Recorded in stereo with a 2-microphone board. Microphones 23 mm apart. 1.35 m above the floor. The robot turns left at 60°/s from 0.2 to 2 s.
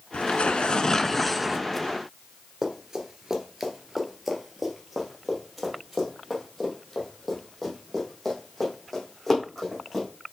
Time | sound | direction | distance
0.1 | tearing paper | 70° left | 0.5 m
2.6 | running footsteps | 25° right (ahead or behind) | 1.4 m